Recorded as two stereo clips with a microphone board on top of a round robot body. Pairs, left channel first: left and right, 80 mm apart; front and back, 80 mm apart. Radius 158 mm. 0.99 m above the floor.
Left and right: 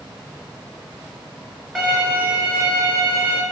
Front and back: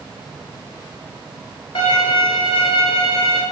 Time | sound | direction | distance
1.8 | a violin | 10° right | 4 m